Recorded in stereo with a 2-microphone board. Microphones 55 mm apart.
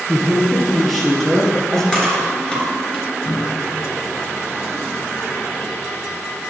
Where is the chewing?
15° left (ahead or behind), 3.5 m.